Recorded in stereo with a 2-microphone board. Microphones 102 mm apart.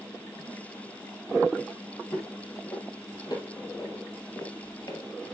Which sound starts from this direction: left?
Footsteps, at 2.1 s.